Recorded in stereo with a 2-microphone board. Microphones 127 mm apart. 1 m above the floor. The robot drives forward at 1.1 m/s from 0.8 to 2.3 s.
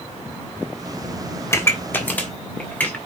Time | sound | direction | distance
1.5 | a pop | 20° left (ahead or behind) | 1.1 m